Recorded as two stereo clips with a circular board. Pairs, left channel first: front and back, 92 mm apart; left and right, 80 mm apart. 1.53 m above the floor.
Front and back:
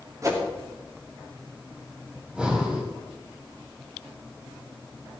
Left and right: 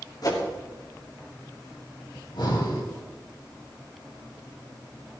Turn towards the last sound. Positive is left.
turn(degrees=100)